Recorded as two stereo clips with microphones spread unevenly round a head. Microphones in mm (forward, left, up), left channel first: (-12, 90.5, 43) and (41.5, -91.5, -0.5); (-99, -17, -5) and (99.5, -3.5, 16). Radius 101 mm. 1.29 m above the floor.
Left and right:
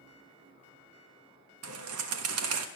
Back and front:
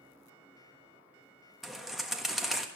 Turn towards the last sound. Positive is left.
turn(degrees=-85)